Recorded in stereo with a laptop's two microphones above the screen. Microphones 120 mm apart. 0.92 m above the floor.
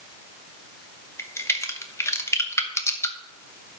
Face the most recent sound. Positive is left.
turn(degrees=25)  # may be behind; listen again after turning